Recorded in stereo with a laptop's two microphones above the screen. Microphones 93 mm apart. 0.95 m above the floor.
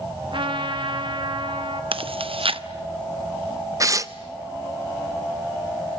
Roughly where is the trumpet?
Right.